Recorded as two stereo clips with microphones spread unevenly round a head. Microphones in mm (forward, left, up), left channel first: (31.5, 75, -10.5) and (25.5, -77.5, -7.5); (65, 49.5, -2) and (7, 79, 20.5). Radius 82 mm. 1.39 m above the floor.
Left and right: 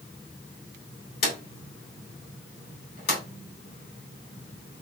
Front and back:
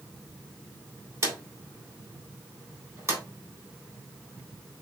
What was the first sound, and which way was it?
A drawer, 120° left.